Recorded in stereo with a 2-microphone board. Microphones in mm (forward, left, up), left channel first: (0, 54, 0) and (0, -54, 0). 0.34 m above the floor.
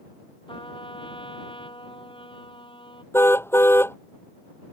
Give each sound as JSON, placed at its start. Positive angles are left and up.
{"t": 0.5, "sound": "a trumpet", "side_deg": 50}
{"t": 3.1, "sound": "a car horn", "side_deg": 20}